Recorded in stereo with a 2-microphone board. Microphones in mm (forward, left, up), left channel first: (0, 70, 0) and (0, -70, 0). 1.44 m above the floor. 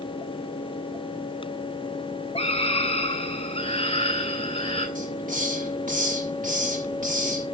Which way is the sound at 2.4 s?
40° left (ahead or behind).